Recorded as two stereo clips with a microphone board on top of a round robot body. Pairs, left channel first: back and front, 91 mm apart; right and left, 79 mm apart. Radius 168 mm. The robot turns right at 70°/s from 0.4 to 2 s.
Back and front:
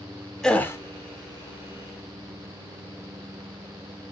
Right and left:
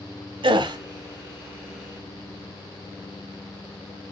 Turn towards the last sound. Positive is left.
turn(degrees=-155)